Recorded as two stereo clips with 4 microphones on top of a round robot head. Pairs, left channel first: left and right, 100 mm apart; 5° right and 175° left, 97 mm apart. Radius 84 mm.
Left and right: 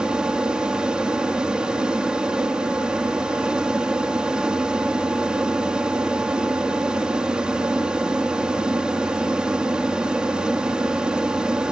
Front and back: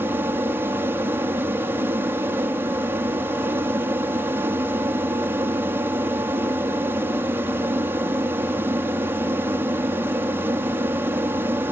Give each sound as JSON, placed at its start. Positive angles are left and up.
{"t": 0.0, "sound": "an aircraft", "azimuth_deg": -155}